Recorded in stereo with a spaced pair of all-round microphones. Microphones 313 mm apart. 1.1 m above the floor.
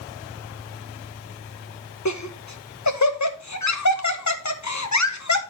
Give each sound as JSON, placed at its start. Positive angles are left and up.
{"t": 2.0, "sound": "laughter", "side_deg": 60, "distance_m": 1.2}